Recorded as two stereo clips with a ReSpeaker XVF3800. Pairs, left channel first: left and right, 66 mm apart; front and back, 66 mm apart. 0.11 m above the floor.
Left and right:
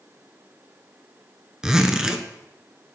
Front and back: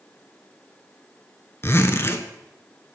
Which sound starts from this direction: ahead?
A zipper, at 1.6 s.